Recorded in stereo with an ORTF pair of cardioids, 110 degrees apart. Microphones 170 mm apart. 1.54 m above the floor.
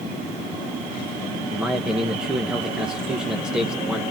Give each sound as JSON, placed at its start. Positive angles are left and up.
{"t": 1.5, "sound": "a man speaking", "azimuth_deg": -5, "distance_m": 1.3}